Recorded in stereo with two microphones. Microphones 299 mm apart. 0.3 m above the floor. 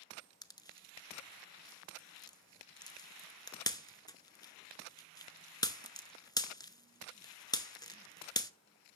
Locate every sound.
0.4 s a pop: 15° left (ahead or behind), 0.7 m